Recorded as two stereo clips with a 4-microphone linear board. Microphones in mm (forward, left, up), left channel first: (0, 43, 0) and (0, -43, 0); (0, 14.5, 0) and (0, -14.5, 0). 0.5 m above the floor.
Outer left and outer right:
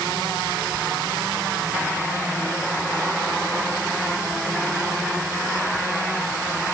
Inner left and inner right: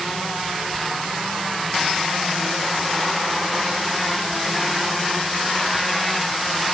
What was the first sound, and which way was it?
Only background noise.